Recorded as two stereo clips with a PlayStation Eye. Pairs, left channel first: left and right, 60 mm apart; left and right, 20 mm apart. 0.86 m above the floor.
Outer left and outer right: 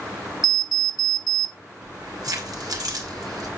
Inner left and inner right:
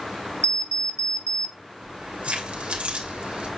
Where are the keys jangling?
80° right, 2.5 m.